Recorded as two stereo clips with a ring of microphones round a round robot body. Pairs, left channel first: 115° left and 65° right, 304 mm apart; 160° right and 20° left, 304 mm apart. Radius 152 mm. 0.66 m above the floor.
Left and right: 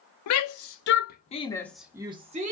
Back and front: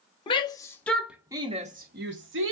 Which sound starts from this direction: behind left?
A shout, at 0.3 s.